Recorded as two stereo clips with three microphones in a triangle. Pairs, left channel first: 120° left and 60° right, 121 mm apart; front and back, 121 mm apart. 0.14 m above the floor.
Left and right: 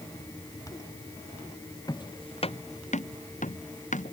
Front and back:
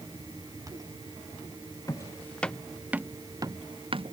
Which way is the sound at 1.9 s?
65° left.